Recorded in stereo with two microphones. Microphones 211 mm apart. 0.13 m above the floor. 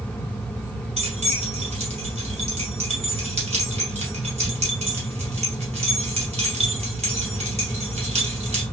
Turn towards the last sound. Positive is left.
turn(degrees=-30)  # may be behind; listen again after turning